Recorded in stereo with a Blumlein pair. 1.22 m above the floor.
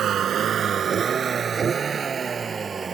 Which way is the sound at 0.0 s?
25° right.